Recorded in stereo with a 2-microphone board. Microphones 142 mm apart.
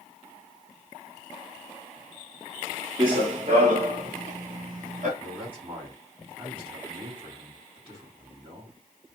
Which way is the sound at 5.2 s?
40° right (ahead or behind).